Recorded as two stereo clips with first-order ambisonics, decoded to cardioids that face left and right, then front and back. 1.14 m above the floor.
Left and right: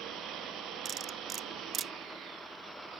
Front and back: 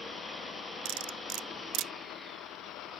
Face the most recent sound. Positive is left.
turn(degrees=-150)